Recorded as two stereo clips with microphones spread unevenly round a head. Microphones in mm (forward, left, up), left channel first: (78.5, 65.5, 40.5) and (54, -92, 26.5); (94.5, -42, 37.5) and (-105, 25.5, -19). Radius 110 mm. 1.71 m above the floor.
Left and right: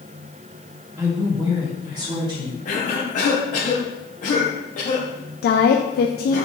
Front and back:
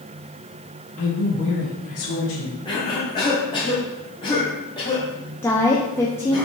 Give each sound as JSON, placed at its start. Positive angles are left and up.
{"t": 1.0, "sound": "a woman speaking", "azimuth_deg": -50, "distance_m": 1.7}
{"t": 2.6, "sound": "a cough", "azimuth_deg": 45, "distance_m": 1.4}
{"t": 5.4, "sound": "a woman speaking", "azimuth_deg": 60, "distance_m": 0.6}